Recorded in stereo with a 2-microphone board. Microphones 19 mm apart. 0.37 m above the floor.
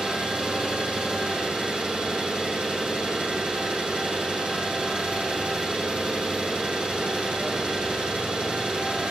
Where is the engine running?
55° right (ahead or behind), 7 m.